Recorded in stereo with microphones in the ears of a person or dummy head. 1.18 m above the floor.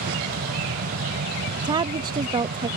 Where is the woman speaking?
25° right (ahead or behind).